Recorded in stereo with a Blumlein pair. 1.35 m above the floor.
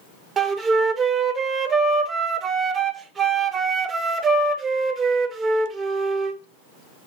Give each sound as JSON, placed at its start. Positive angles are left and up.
{"t": 0.4, "sound": "a flute", "azimuth_deg": -20, "distance_m": 0.6}